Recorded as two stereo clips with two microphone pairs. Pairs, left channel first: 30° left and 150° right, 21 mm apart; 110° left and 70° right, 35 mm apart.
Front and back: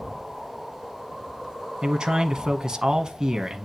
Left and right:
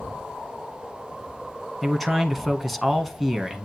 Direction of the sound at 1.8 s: 165° right.